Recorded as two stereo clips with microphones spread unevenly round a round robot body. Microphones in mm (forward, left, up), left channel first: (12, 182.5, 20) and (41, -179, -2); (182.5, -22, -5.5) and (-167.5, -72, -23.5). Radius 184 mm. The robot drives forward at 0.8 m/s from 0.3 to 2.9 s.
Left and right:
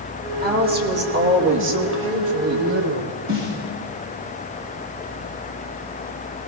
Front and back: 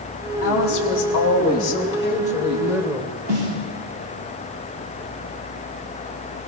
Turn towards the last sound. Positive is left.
turn(degrees=-145)